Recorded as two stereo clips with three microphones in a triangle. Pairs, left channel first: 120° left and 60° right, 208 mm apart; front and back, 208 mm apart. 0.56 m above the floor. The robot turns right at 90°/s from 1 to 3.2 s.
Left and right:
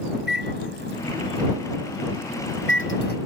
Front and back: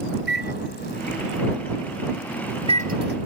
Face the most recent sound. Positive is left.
turn(degrees=165)